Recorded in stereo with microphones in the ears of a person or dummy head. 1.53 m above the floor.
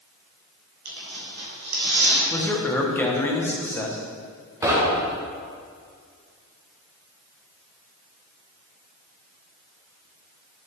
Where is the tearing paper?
60° right (ahead or behind), 2.5 m.